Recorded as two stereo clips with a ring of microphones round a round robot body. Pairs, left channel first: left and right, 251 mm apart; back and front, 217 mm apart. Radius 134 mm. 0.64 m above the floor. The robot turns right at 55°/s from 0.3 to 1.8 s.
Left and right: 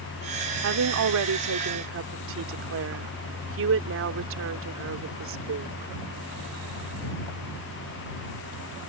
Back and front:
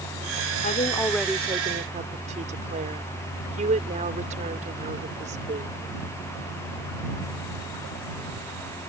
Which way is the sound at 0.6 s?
125° right.